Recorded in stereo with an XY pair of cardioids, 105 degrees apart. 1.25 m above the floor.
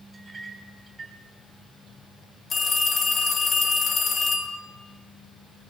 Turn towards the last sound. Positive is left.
turn(degrees=50)